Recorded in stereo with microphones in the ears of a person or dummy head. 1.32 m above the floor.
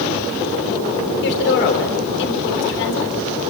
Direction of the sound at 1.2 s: 60° left (ahead or behind).